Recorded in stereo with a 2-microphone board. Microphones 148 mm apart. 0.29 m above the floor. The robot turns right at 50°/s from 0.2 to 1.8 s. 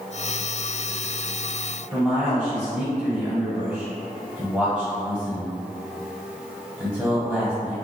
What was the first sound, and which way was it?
A man speaking, 5° left (ahead or behind).